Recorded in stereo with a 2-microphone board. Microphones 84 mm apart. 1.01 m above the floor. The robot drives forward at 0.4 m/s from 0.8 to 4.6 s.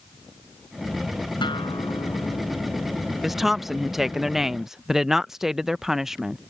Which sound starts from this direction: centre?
A woman speaking, at 3.2 s.